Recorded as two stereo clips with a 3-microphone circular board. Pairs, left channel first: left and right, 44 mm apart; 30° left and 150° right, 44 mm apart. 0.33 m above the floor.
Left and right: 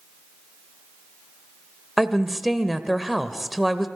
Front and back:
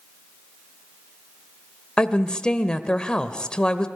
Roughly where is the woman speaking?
Ahead.